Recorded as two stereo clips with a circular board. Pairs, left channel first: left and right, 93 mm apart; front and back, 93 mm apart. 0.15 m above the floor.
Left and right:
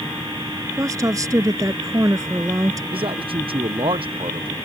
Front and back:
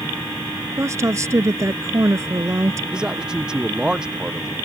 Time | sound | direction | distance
0.8 | a woman speaking | 130° right | ?
2.9 | a man speaking | 100° right | ?